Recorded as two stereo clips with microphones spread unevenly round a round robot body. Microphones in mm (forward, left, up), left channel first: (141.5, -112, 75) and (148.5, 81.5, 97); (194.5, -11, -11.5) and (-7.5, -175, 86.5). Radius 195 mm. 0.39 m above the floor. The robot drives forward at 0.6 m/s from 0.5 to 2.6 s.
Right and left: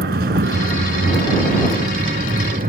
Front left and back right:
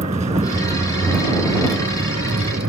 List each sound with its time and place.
0.0 s a vehicle: 145° left; by 2.7 s 155° left